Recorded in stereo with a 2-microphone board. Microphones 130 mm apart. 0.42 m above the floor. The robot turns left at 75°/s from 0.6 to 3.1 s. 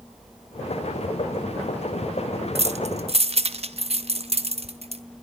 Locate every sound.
2.5 s keys jangling: 50° right (ahead or behind), 1.4 m